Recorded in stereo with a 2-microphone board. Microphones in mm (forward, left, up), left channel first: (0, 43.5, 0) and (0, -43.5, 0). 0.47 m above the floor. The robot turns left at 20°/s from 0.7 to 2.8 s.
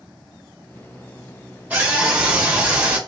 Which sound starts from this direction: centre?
A scream, at 1.7 s.